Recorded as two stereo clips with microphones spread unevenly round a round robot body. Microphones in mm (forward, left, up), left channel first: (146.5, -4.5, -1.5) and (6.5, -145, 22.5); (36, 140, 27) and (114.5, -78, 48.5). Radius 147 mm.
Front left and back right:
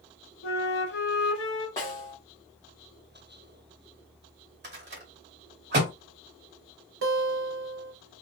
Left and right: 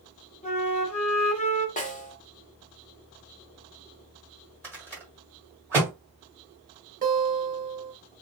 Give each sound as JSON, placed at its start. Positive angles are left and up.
{"t": 0.4, "sound": "a flute", "azimuth_deg": 50, "distance_m": 0.9}
{"t": 1.8, "sound": "a snare drum", "azimuth_deg": 105, "distance_m": 1.1}
{"t": 4.6, "sound": "a rattle", "azimuth_deg": -155, "distance_m": 1.4}
{"t": 7.0, "sound": "a guitar", "azimuth_deg": -130, "distance_m": 0.8}